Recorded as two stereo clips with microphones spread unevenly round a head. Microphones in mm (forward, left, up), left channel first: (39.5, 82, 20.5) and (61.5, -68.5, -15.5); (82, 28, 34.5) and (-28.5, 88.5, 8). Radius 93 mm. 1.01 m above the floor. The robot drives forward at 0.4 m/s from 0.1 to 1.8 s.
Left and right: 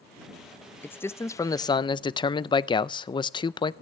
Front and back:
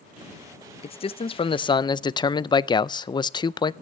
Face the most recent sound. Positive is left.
turn(degrees=30)